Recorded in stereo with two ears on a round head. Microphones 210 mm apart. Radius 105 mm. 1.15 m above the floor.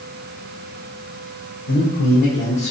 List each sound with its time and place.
1.7 s a man speaking: 65° left (ahead or behind), 1.0 m; by 2.7 s 5° left (ahead or behind), 0.9 m